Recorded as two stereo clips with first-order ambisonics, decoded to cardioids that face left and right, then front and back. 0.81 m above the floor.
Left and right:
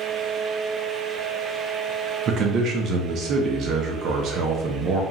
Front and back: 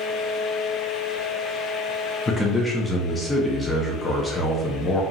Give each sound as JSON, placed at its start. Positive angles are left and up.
{"t": 2.3, "sound": "a man speaking", "azimuth_deg": -70, "distance_m": 0.6}